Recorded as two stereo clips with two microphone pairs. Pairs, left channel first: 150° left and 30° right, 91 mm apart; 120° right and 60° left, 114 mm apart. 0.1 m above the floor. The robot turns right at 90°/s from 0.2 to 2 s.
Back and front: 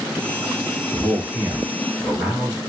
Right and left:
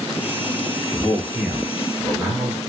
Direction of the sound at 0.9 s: 75° right.